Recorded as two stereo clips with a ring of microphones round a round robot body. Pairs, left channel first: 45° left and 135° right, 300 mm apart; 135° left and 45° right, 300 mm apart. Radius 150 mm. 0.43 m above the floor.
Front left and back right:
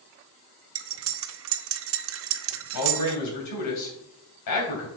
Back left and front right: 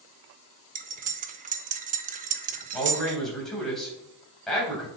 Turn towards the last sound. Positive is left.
turn(degrees=45)